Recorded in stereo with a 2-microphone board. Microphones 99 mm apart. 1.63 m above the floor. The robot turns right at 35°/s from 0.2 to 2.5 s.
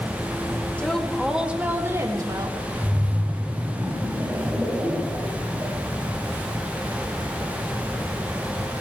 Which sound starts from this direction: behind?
A woman speaking, at 0.8 s.